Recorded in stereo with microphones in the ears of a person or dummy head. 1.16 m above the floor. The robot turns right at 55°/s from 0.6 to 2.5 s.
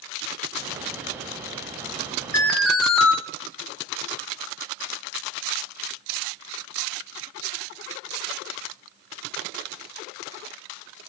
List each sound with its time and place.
2.3 s an alarm: 10° left (ahead or behind), 1.0 m; by 3.1 s centre (ahead or behind), 1.0 m